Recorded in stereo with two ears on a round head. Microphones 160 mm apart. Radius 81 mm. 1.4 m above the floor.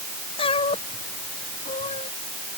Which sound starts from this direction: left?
A cat meowing, at 0.4 s.